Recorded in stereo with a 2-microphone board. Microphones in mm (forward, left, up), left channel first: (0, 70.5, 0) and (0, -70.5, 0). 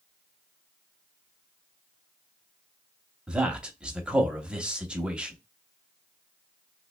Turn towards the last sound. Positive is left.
turn(degrees=-5)  # may be behind; listen again after turning